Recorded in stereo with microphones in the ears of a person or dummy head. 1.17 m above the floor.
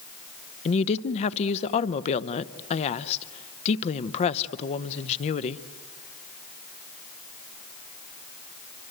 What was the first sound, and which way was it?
A woman speaking, 35° left (ahead or behind).